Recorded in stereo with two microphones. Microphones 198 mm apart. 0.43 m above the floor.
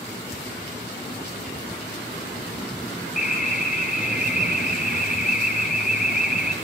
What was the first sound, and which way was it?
An alarm, 45° left (ahead or behind).